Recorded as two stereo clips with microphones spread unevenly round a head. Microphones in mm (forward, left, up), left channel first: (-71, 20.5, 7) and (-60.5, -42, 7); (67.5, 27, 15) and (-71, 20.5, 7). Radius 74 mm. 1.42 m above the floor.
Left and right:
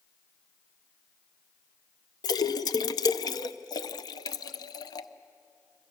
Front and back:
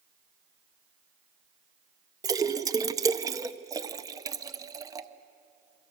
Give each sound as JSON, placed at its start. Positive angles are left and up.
{"t": 2.2, "sound": "a splash", "azimuth_deg": 115, "distance_m": 0.8}